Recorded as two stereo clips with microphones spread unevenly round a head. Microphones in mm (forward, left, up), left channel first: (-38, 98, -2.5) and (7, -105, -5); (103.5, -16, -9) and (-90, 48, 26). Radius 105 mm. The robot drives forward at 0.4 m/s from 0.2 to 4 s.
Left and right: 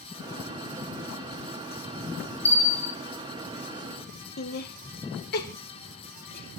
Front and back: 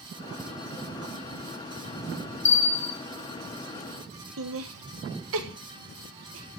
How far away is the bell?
About 2 m.